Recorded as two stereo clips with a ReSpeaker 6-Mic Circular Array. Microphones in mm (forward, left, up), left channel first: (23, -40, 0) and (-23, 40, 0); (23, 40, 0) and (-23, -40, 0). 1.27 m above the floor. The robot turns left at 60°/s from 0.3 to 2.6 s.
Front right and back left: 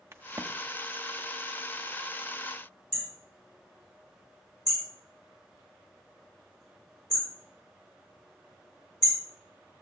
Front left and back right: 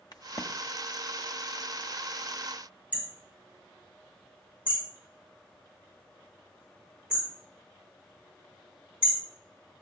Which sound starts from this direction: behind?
Hammering, at 2.9 s.